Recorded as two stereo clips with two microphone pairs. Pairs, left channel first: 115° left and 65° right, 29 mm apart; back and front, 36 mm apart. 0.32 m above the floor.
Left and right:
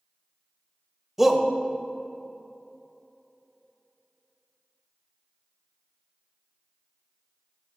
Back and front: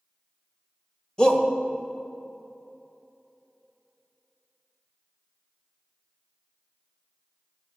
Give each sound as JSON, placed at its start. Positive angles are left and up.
{"t": 1.2, "sound": "a shout", "azimuth_deg": -135, "distance_m": 1.3}